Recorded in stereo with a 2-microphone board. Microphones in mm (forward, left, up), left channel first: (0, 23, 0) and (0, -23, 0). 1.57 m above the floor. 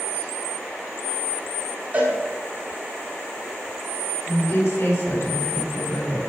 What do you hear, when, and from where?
1.9 s a cowbell: 30° right (ahead or behind), 5.5 m
4.3 s a woman speaking: 60° left (ahead or behind), 5 m